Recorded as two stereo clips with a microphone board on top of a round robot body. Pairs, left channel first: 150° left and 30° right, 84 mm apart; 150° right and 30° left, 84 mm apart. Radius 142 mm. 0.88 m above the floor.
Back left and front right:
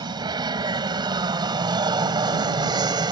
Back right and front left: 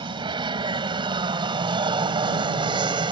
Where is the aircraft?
5° left.